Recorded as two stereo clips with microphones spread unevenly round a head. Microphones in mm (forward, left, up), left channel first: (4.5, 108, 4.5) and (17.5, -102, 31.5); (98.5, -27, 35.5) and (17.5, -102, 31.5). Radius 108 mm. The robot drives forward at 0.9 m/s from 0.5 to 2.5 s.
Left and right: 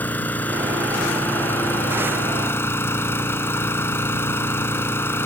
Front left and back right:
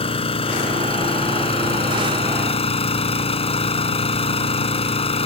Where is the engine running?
10° left; by 5.3 s 15° left.